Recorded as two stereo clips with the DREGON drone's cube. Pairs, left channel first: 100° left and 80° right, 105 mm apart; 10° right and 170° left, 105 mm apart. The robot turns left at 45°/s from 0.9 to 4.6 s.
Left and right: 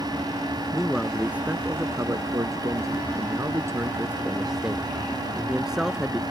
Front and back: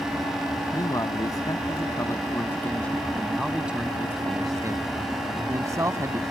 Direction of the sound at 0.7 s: 10° left.